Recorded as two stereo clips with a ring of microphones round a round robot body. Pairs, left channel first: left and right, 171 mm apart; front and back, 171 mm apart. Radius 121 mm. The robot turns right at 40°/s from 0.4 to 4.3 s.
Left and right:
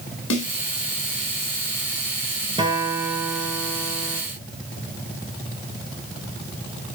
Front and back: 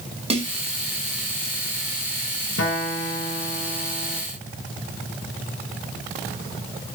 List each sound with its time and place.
0.3 s a snare drum: 125° left, 6.5 m; by 0.5 s 130° left, 6.5 m
2.6 s a guitar: 25° right, 5 m; by 4.2 s 40° left, 5 m